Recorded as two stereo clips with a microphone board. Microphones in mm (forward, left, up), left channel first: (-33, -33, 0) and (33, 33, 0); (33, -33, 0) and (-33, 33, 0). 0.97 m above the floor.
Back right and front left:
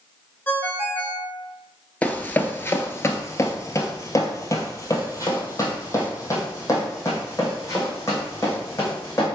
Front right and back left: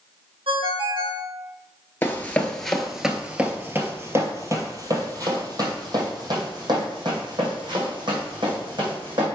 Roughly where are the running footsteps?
Right.